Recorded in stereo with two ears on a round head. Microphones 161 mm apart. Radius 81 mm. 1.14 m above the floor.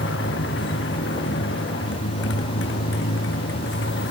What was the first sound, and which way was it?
A motorcycle, 70° left (ahead or behind).